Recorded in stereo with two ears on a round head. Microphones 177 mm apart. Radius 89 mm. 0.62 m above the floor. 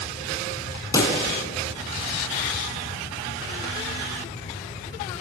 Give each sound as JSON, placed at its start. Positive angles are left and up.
{"t": 0.9, "sound": "a pop", "side_deg": 20, "distance_m": 3.0}